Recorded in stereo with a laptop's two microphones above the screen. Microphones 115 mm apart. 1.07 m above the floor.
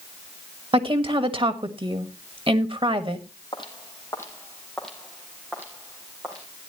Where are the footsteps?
45° left (ahead or behind), 1.9 m; by 6.5 s 25° right (ahead or behind), 3 m.